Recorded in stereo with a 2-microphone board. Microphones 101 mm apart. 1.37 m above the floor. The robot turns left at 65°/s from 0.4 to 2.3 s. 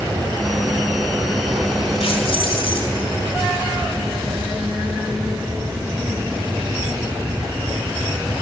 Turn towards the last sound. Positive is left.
turn(degrees=60)  # may be behind; listen again after turning